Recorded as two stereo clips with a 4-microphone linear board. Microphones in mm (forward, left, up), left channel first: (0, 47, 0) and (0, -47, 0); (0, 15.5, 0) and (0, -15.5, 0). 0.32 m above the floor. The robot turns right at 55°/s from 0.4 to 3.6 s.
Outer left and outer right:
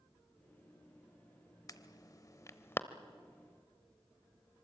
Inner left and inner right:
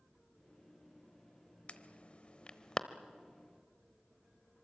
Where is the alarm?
40° left (ahead or behind), 0.9 m; by 2.8 s 25° left (ahead or behind), 0.9 m.